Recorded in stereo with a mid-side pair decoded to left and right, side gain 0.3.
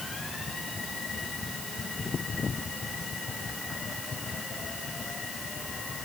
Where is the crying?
I don't hear crying.